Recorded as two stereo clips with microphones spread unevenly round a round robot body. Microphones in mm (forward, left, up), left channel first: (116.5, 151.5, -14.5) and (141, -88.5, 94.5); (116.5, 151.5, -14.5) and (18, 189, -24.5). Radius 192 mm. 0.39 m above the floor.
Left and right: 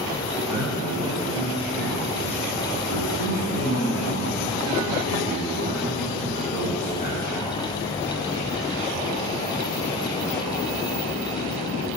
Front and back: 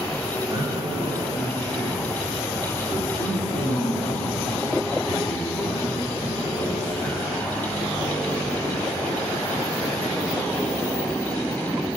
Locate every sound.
0.5 s a man speaking: 115° right, 3.5 m; by 7.5 s 25° right, 7 m